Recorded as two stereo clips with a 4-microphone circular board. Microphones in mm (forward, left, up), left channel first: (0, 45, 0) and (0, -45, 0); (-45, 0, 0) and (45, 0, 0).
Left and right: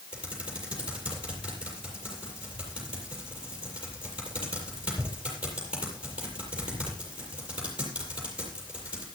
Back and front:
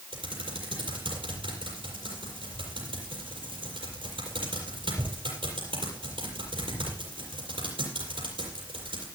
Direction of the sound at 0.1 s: 15° right.